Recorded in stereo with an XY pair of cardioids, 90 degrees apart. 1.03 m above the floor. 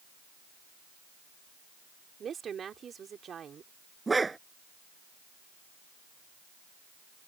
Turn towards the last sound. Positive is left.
turn(degrees=-25)